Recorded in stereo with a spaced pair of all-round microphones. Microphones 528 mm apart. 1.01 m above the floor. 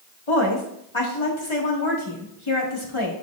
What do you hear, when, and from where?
0.3 s a woman speaking: 60° left (ahead or behind), 1.7 m